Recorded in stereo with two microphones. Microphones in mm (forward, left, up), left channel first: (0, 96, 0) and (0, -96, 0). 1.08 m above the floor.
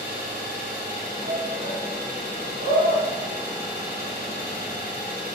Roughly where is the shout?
Right.